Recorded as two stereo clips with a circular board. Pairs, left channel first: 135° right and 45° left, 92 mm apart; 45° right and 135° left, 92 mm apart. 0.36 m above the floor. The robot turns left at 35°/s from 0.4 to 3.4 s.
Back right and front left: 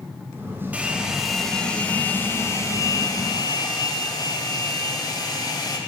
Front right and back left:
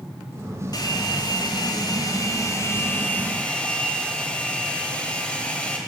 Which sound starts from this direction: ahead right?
A hair dryer, at 0.7 s.